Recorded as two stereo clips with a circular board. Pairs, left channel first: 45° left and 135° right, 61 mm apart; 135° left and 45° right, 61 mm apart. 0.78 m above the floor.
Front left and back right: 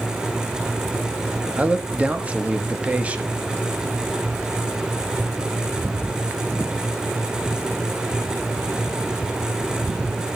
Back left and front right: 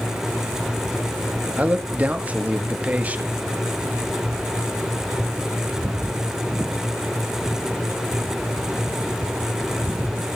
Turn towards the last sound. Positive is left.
turn(degrees=-85)